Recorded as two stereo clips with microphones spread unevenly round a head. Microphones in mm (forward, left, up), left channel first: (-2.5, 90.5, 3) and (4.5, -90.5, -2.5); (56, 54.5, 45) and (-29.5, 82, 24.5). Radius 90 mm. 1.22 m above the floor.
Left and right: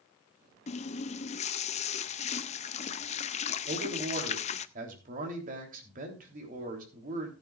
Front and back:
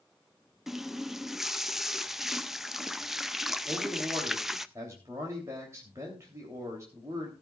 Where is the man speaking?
130° right, 3.5 m.